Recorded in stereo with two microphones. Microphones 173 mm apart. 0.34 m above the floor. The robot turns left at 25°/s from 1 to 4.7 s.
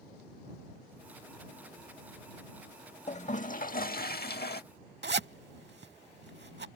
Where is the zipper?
85° right.